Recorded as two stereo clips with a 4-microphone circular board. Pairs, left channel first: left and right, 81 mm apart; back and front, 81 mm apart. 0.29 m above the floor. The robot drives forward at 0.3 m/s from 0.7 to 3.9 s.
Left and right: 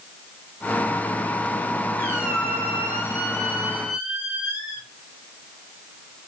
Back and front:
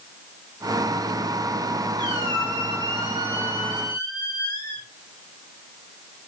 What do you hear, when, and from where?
2.0 s a squeak: 150° right, 3.5 m; by 4.9 s 155° right, 4 m